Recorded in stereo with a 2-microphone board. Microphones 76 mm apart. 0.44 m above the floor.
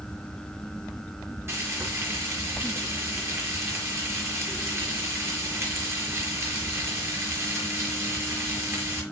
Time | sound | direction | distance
1.5 | frying | 35° right (ahead or behind) | 6 m